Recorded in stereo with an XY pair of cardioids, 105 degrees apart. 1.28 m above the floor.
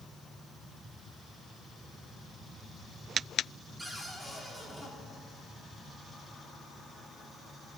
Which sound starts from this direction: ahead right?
A cupboard door, at 3.8 s.